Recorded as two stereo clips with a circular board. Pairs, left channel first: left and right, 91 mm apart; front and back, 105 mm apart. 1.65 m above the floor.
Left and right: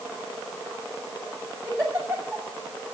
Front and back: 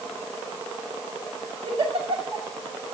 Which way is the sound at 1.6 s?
160° right.